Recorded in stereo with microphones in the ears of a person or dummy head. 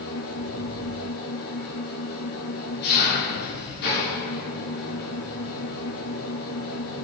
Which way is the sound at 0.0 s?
60° left (ahead or behind).